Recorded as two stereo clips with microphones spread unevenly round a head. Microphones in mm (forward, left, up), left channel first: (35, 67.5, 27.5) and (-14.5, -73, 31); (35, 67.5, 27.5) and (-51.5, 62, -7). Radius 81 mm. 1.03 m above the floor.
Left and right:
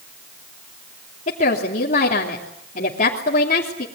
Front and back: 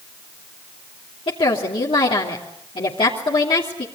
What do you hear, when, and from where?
1.3 s a woman speaking: 35° left, 3 m